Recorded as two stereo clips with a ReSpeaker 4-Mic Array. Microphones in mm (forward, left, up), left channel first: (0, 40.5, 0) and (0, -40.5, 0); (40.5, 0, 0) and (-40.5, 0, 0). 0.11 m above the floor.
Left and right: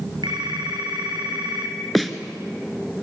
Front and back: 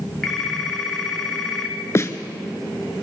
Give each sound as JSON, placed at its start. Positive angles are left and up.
{"t": 0.2, "sound": "a phone ringing", "azimuth_deg": -85, "distance_m": 3.5}
{"t": 1.9, "sound": "a snare drum", "azimuth_deg": 0, "distance_m": 1.4}